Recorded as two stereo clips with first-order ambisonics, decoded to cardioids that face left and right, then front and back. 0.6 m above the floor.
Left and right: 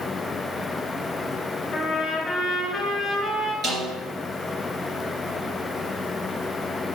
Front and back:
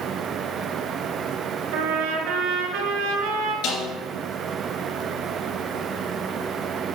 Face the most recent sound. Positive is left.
turn(degrees=-25)